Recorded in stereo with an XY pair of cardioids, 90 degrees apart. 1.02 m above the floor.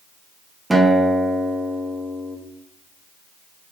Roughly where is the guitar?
Ahead.